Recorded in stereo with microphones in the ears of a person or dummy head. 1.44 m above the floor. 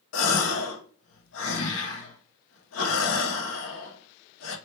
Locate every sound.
0.1 s a gasp: 80° left, 0.7 m